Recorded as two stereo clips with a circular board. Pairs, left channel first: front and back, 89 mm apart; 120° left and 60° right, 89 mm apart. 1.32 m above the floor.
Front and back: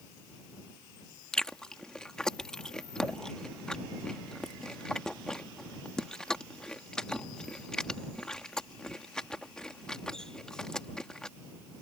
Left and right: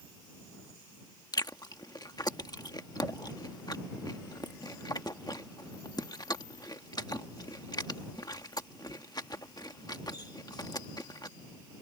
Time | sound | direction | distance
1.3 | chewing | 80° left | ?